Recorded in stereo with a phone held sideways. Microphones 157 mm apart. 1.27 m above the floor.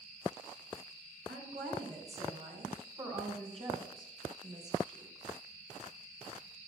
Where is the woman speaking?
60° right (ahead or behind), 5.5 m; by 5.3 s 25° right (ahead or behind), 4 m.